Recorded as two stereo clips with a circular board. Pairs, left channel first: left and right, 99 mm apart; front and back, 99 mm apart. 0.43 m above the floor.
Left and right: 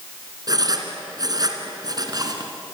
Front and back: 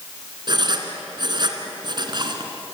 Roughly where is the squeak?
I don't hear a squeak.